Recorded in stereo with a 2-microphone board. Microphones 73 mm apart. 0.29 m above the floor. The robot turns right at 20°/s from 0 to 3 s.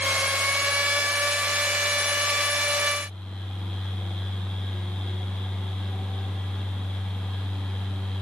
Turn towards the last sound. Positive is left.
No sound to turn to.